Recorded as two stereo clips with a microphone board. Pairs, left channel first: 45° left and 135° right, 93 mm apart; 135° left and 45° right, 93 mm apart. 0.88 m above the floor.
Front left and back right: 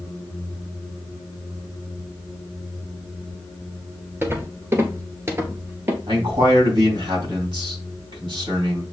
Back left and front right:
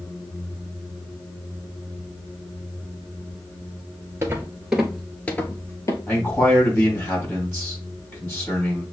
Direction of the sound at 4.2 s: 85° right.